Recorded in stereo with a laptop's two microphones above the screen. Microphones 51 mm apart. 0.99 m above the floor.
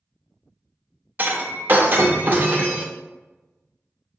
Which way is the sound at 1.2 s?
40° right (ahead or behind).